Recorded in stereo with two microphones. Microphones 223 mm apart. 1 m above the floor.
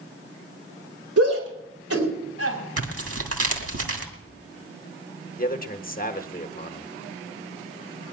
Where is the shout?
85° right, 4 m.